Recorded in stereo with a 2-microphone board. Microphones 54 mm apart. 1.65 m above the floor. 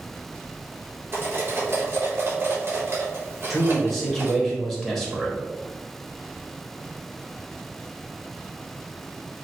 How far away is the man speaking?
About 1.4 m.